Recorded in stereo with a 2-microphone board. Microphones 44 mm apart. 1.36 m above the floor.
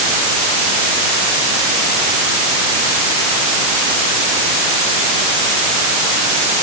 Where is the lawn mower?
No lawn mower in this recording.